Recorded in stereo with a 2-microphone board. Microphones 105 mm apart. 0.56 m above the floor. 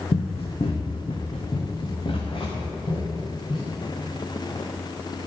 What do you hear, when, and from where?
0.1 s running footsteps: 70° left (ahead or behind), 1.7 m; by 3.7 s 50° left (ahead or behind), 6 m